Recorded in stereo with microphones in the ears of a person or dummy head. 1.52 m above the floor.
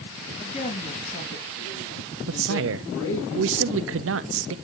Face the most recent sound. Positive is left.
turn(degrees=-70)  # may be behind; listen again after turning